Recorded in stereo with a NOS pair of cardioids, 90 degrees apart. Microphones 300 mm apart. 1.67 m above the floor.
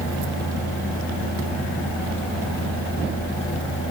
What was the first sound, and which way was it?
A fan, 50° left.